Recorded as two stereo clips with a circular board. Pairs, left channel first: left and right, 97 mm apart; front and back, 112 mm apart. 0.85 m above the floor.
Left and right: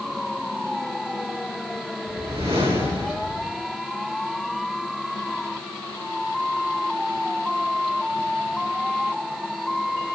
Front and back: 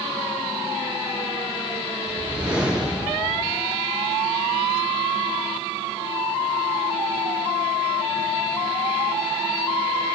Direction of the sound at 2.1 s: 100° right.